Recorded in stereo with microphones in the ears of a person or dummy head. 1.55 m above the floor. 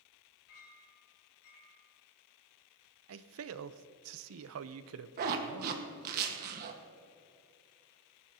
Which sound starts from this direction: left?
A clink, at 0.5 s.